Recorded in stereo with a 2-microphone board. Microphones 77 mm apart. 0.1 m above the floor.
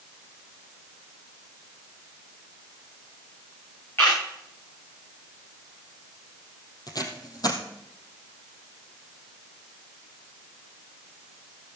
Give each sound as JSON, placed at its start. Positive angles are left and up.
{"t": 4.0, "sound": "a camera shutter", "side_deg": 30, "distance_m": 8.0}
{"t": 6.9, "sound": "tape being pulled", "side_deg": 55, "distance_m": 2.5}